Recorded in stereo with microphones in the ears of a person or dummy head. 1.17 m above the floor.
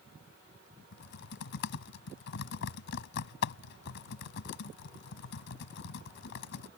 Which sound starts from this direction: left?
Typing on a keyboard, at 0.9 s.